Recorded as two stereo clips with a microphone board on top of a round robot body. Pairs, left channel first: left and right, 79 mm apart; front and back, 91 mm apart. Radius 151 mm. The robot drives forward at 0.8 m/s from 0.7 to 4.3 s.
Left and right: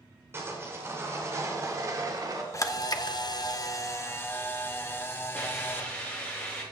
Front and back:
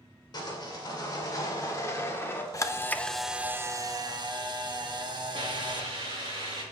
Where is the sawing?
35° right, 3 m; by 2.4 s 60° right, 1.9 m.